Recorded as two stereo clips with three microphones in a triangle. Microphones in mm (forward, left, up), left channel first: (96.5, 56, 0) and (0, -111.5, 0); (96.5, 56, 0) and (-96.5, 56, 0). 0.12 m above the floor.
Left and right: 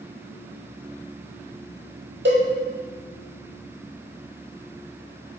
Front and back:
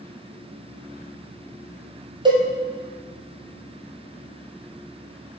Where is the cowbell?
115° right, 1.2 m.